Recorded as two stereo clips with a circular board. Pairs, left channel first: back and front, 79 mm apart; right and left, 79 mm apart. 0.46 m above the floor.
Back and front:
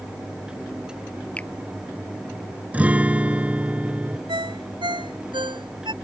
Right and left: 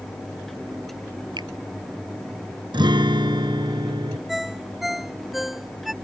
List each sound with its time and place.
1.4 s a finger snap: 110° left
2.7 s a guitar: 75° left
4.3 s a ringtone: straight ahead